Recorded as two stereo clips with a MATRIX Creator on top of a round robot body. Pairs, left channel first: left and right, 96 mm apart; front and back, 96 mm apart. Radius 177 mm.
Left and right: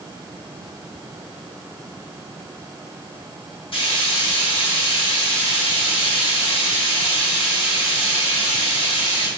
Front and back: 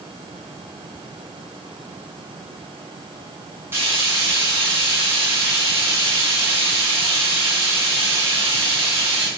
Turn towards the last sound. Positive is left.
turn(degrees=115)